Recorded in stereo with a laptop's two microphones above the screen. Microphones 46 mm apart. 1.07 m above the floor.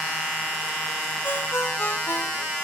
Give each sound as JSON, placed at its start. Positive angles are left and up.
{"t": 1.2, "sound": "a ringtone", "side_deg": 65}